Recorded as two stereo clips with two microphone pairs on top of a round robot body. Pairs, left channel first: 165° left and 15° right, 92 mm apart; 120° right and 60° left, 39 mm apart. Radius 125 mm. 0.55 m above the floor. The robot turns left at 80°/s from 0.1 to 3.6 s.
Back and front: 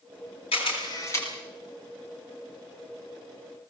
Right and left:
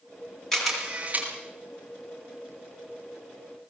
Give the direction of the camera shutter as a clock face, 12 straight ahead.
7 o'clock.